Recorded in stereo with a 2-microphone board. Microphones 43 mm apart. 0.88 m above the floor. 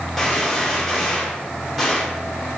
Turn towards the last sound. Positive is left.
turn(degrees=0)  # may be behind; listen again after turning